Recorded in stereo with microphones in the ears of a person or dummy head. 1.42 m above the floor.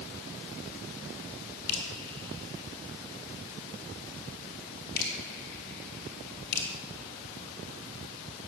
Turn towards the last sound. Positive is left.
turn(degrees=60)  # may be behind; listen again after turning